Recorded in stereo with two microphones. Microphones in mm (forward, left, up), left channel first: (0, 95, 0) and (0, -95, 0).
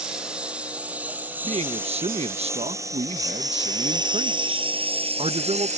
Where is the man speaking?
35° right (ahead or behind).